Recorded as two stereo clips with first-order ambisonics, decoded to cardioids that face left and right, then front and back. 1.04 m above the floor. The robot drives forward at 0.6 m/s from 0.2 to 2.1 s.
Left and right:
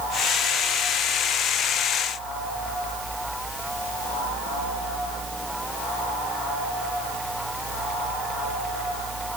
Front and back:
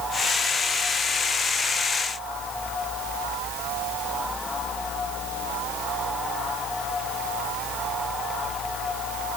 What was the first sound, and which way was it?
Only background noise.